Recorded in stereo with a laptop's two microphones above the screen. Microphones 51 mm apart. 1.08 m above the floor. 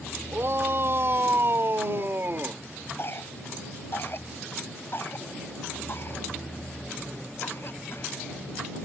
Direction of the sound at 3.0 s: 50° left (ahead or behind).